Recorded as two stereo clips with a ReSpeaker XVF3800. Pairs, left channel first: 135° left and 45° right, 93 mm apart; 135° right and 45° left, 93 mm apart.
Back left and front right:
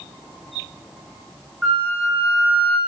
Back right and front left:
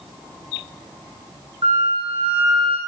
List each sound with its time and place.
1.6 s a flute: 50° left, 0.9 m